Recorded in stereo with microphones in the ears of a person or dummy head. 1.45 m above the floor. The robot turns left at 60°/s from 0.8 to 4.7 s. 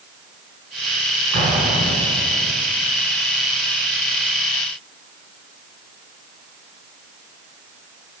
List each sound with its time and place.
1.3 s an explosion: 115° right, 4.5 m; by 2.5 s 175° left, 4.5 m